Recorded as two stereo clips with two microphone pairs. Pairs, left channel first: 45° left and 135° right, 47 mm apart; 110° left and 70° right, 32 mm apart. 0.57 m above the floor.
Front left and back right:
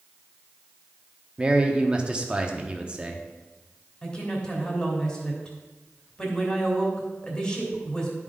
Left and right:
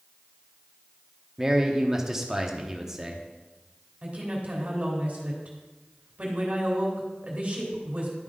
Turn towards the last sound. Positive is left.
turn(degrees=-25)